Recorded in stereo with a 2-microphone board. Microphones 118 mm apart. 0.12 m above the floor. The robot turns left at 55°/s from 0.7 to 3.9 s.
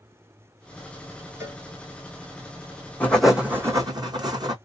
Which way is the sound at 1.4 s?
25° right (ahead or behind).